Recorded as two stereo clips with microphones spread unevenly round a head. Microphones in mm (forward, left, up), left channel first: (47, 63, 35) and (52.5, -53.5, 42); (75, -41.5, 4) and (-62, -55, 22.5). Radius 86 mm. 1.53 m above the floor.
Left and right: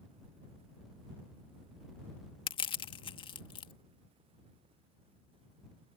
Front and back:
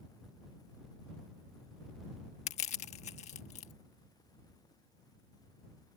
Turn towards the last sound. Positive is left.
turn(degrees=55)